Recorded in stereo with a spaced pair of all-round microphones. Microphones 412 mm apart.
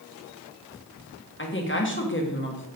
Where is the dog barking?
No dog barking in this recording.